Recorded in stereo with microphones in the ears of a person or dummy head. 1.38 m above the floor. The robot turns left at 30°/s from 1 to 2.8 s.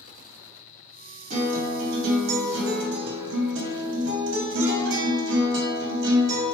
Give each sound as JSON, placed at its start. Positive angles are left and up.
{"t": 1.3, "sound": "a guitar", "azimuth_deg": -55, "distance_m": 0.6}